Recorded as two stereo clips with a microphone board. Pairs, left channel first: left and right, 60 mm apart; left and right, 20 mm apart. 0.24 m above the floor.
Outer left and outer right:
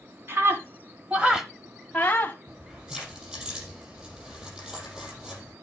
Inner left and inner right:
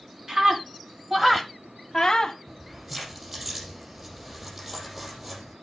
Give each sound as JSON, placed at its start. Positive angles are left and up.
{"t": 0.3, "sound": "a scream", "side_deg": -40, "distance_m": 1.9}
{"t": 2.5, "sound": "keys jangling", "side_deg": -15, "distance_m": 8.0}